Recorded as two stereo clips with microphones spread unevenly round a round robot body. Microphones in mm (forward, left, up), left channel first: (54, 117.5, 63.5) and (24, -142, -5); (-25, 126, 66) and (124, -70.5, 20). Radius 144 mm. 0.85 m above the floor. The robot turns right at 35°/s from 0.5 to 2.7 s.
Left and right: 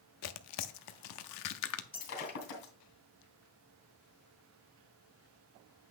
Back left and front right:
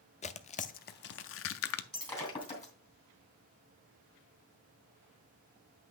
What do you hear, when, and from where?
0.2 s tearing paper: 70° left, 0.6 m; by 1.8 s 115° left, 0.6 m
1.9 s breaking glass: 40° left, 3 m; by 2.7 s 65° left, 3 m